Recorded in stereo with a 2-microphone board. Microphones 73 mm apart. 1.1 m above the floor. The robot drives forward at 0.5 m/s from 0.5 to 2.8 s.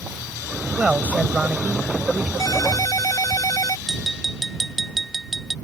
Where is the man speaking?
20° right (ahead or behind).